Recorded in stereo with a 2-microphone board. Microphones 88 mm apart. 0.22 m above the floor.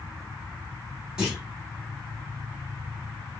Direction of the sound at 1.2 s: 10° right (ahead or behind).